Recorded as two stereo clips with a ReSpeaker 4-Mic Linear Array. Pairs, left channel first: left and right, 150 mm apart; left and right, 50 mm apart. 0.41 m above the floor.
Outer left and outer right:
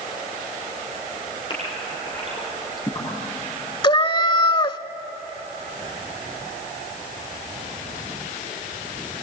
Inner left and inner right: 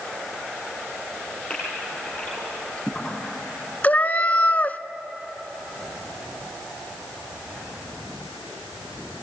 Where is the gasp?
35° left (ahead or behind), 6 m.